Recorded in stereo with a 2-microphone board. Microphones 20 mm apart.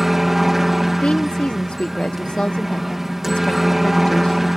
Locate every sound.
0.0 s a helicopter: 10° right (ahead or behind)
1.0 s a woman speaking: 85° left